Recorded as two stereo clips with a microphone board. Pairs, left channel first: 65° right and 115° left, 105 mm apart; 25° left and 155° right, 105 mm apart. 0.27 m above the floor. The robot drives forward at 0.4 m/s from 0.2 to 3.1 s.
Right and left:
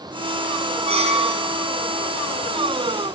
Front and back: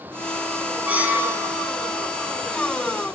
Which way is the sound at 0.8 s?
125° left.